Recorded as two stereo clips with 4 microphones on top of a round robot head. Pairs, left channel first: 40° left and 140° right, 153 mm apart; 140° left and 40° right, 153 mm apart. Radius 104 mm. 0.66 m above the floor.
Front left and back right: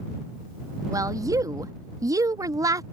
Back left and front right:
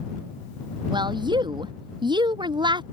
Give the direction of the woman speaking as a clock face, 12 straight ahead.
3 o'clock.